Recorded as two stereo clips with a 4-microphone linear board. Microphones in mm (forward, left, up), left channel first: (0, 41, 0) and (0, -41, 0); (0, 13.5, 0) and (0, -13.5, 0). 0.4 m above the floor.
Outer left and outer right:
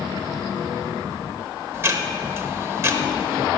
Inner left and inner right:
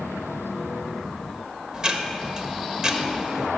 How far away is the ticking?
About 1.1 m.